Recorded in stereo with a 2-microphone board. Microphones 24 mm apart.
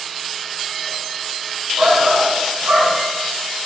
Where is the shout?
50° right (ahead or behind), 2.5 m; by 3.0 s 70° right (ahead or behind), 3 m.